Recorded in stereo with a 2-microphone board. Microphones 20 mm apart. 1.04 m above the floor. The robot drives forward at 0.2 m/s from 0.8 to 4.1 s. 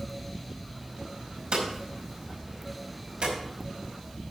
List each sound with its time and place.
1.5 s hammering: 60° right (ahead or behind), 5 m; by 3.3 s 55° right (ahead or behind), 5.5 m